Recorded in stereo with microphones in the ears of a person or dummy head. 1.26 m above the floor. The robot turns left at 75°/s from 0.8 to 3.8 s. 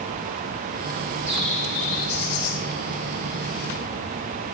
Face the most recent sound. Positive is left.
turn(degrees=0)